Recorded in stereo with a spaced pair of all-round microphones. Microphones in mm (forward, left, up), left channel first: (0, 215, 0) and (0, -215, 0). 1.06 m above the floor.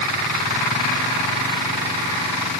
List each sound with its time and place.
Only background noise.